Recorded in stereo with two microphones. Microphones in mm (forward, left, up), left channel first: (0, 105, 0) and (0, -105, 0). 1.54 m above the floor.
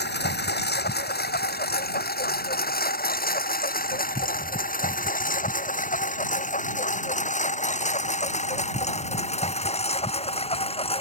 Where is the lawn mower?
55° left (ahead or behind); by 11.0 s 25° left (ahead or behind).